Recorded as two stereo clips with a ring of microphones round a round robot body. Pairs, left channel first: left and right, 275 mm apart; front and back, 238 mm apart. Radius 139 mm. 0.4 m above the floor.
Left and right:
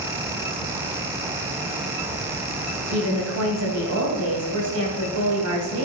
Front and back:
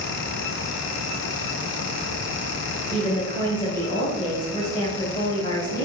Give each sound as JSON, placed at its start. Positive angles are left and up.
{"t": 2.9, "sound": "a woman speaking", "azimuth_deg": -70, "distance_m": 2.5}